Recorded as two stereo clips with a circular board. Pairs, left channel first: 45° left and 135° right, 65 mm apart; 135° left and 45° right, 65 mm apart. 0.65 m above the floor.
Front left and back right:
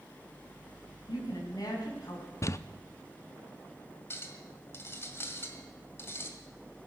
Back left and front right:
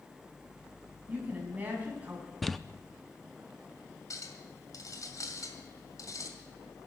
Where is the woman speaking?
25° left, 5 m.